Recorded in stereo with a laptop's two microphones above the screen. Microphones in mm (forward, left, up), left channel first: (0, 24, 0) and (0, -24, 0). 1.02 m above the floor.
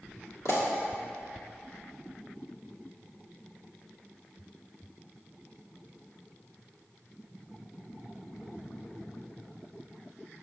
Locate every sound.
0.5 s a pop: 70° left (ahead or behind), 1.7 m